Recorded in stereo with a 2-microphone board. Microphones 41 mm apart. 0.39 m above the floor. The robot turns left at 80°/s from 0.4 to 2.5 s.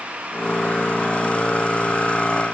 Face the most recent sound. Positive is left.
No sound to turn to.